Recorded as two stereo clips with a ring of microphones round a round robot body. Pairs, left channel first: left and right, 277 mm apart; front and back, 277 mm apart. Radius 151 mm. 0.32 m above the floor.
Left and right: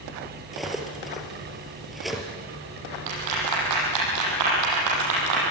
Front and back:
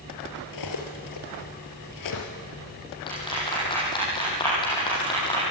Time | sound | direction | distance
0.5 | cutlery clinking | straight ahead | 4 m
3.1 | a clap | 75° right | 9.5 m